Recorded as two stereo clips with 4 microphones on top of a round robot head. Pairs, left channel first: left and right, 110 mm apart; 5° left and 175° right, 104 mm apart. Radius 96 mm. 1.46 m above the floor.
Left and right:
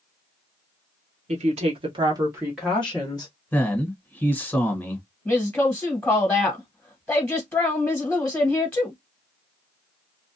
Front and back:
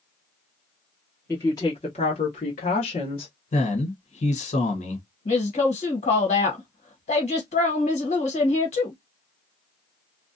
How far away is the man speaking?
About 1.3 m.